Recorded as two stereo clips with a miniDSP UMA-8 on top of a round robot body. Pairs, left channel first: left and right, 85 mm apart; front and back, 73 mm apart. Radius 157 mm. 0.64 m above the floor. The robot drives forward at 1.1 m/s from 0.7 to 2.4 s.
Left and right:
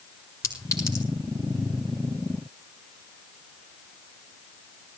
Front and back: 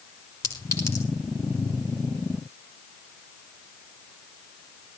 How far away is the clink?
About 4 m.